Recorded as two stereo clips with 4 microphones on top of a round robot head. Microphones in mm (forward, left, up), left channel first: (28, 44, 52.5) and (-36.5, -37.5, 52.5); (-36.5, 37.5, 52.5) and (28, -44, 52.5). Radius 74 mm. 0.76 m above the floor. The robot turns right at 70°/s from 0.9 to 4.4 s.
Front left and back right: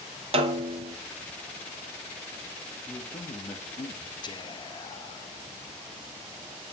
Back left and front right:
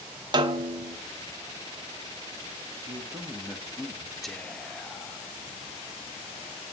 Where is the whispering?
40° left, 0.7 m; by 5.3 s 50° left, 0.7 m.